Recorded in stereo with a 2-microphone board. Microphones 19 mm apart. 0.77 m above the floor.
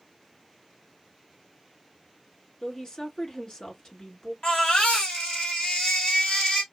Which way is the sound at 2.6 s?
45° left (ahead or behind).